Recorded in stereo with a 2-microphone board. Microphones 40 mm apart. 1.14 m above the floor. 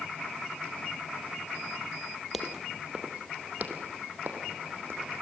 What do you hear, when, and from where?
2.3 s footsteps: 5° right (ahead or behind), 2 m; by 5.1 s 65° right (ahead or behind), 4.5 m